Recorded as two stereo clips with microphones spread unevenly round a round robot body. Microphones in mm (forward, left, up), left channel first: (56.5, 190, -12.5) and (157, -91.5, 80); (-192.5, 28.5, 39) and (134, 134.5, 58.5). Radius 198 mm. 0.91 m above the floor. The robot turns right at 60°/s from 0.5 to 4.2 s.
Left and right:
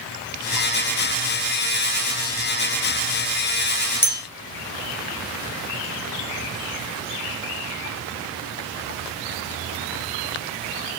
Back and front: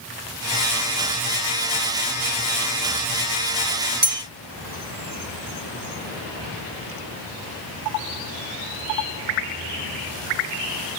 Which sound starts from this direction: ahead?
A bell, at 4.0 s.